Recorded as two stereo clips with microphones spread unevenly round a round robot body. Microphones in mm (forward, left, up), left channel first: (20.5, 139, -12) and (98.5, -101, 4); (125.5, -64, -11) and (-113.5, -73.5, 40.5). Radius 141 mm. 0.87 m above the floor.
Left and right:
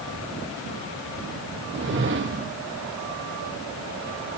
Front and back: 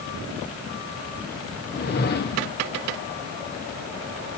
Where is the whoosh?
30° right, 1.2 m.